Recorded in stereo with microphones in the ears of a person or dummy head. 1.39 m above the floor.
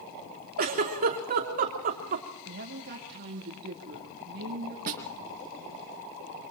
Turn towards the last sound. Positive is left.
turn(degrees=-50)  # may be behind; listen again after turning